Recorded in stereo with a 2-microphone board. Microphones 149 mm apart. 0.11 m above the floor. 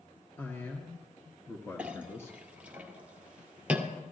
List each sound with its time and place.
0.4 s a man speaking: 15° left (ahead or behind), 1.9 m; by 2.4 s 20° left (ahead or behind), 1.4 m
1.8 s a clink: 10° right (ahead or behind), 1.7 m